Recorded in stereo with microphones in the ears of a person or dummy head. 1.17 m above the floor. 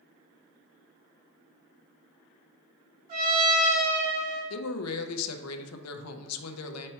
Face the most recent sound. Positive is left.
turn(degrees=85)